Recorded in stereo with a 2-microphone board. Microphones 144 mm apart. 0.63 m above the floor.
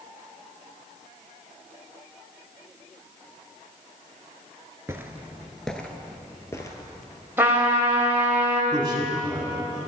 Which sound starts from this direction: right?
A man speaking, at 8.7 s.